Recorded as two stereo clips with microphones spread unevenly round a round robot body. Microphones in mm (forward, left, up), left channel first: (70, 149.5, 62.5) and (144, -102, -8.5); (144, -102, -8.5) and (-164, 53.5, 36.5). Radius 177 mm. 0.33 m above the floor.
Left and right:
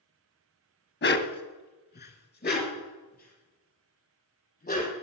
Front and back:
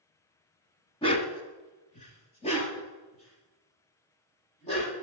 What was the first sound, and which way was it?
A dog barking, 50° left.